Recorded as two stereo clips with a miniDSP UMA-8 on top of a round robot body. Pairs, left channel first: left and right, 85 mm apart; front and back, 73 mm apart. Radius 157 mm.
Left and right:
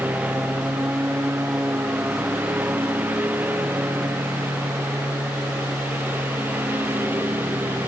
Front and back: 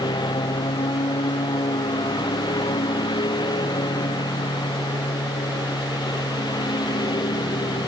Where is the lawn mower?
15° right; by 7.9 s 20° right.